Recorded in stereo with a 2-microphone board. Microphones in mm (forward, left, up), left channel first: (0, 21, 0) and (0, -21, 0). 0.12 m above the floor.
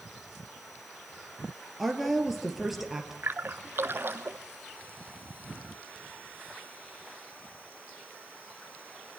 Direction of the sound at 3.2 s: 55° right (ahead or behind).